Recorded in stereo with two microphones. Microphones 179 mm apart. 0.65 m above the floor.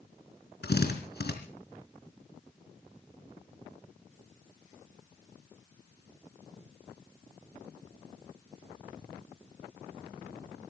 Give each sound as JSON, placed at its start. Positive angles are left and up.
{"t": 0.6, "sound": "a drill", "side_deg": 70, "distance_m": 4.0}